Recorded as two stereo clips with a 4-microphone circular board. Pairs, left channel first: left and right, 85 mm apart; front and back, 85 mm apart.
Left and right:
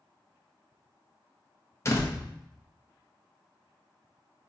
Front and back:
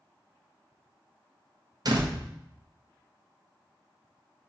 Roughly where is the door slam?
Behind left.